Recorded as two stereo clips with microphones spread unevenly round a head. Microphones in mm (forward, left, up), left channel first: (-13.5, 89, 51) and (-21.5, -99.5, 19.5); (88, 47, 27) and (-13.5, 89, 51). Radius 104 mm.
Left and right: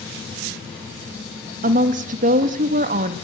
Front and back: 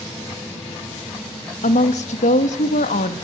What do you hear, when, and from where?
1.6 s a woman speaking: 40° right, 1.5 m